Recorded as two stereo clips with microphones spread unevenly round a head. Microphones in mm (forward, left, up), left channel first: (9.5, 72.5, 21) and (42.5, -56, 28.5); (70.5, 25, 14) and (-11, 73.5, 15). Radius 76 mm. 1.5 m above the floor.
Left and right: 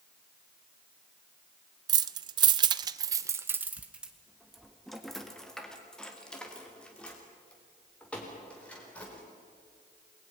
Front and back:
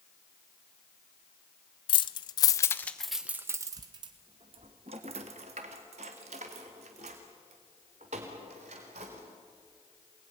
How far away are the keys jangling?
About 0.8 m.